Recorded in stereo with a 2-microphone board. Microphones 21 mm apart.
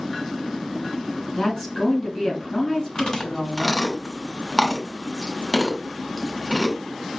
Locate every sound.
1.4 s a woman speaking: 35° left (ahead or behind), 2.5 m
3.0 s chewing: 35° left (ahead or behind), 1.2 m